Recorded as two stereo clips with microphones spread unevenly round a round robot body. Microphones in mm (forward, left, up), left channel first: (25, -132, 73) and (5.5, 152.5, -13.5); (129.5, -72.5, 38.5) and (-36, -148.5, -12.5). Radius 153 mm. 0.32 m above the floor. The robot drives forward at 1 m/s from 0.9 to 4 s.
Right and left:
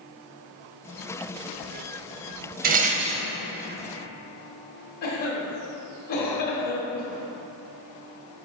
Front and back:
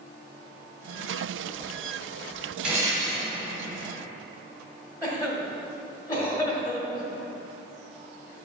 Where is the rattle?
130° left, 0.7 m; by 3.3 s 155° left, 1.2 m.